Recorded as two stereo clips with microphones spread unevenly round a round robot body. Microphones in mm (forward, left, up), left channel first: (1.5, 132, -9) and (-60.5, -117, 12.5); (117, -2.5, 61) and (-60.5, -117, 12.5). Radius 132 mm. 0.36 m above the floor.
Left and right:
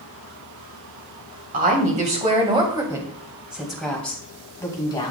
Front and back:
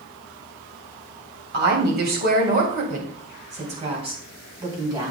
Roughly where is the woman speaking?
Behind.